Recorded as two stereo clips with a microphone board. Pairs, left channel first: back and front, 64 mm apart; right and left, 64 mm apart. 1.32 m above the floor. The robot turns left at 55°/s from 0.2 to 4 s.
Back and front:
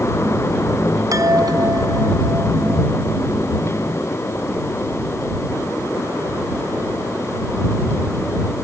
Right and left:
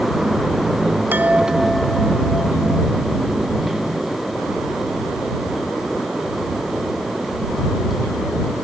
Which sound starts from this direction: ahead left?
A chime, at 1.1 s.